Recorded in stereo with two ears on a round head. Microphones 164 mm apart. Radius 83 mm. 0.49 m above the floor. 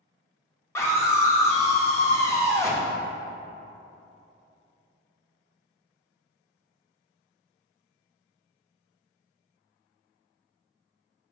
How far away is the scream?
About 0.8 m.